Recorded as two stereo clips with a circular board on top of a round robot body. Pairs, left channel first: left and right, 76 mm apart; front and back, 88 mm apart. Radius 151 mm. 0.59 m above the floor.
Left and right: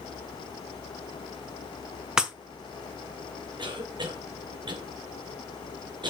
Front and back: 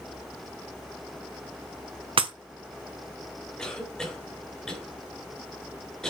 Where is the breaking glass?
170° right, 1.6 m.